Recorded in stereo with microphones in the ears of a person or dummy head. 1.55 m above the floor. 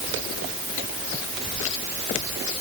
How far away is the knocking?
I don't hear knocking.